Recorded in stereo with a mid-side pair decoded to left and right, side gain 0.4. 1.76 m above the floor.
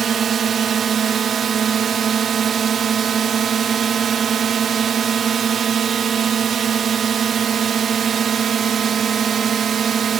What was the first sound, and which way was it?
A drone, 55° right.